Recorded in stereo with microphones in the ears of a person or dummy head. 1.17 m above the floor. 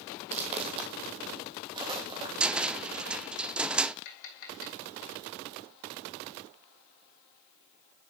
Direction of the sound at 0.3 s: 30° right (ahead or behind).